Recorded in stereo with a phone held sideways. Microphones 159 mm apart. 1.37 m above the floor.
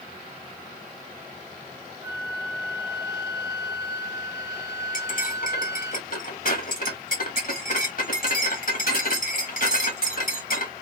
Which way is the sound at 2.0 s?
20° right (ahead or behind).